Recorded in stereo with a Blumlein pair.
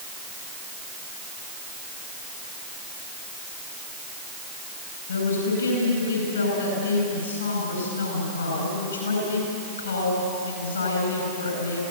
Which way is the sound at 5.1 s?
70° left.